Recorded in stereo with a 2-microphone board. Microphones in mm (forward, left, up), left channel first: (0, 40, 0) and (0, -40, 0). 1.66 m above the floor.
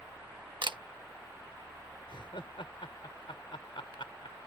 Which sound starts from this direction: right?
A camera shutter, at 0.6 s.